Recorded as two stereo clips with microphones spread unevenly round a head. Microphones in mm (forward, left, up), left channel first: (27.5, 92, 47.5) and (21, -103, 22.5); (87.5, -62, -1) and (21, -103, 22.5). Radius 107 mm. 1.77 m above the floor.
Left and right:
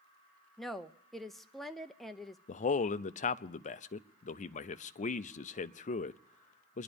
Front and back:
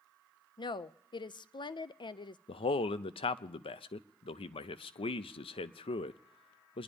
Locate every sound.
0.6 s a woman speaking: 5° left, 0.7 m
2.5 s a man speaking: 40° left, 0.6 m